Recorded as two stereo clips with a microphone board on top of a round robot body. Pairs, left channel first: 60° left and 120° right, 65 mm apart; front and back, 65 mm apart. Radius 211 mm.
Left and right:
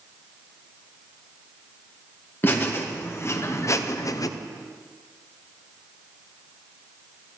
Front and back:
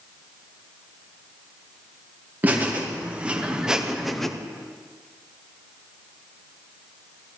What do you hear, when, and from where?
2.4 s laughter: 115° left, 1.8 m; by 4.3 s 85° left, 0.8 m